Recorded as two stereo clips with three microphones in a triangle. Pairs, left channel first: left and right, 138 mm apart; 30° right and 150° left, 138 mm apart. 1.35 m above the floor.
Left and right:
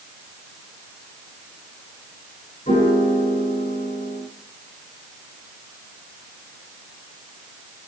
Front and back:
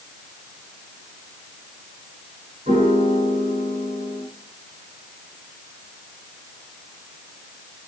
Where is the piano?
115° left, 6.5 m.